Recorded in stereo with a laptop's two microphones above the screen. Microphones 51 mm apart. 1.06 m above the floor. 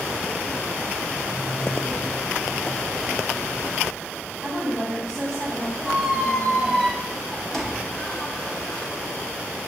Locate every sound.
4.4 s a woman speaking: 5° left (ahead or behind), 4.5 m
5.8 s a squeak: 10° left (ahead or behind), 1.1 m